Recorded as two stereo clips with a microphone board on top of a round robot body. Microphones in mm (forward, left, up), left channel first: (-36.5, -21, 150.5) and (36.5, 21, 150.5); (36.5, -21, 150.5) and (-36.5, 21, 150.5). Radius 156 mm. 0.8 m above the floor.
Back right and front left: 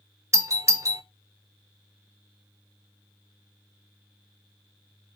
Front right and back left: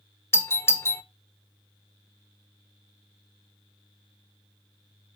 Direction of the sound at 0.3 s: 5° left.